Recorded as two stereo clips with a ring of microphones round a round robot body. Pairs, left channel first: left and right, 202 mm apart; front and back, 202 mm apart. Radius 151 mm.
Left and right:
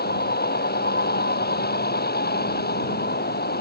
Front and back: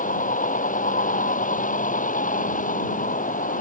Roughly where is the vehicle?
Ahead left.